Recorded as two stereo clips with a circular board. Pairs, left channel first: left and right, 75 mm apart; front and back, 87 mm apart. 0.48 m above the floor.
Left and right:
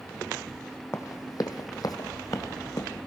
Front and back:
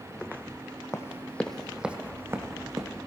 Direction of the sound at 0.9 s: 50° left.